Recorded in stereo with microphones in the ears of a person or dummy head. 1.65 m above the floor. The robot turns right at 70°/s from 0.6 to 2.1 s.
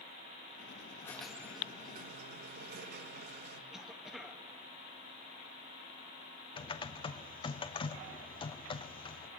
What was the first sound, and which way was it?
A squeak, 165° left.